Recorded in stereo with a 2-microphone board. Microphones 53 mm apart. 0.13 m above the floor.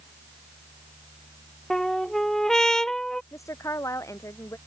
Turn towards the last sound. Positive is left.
turn(degrees=75)  # may be behind; listen again after turning